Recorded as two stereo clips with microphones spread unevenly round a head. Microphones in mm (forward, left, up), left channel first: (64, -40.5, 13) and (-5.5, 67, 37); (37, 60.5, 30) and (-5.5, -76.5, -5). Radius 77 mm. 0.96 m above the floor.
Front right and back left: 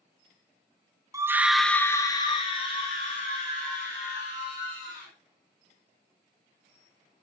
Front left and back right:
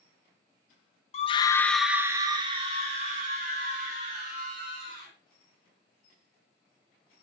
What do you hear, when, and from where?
1.1 s a scream: 65° left, 0.7 m; by 5.1 s 85° right, 2.5 m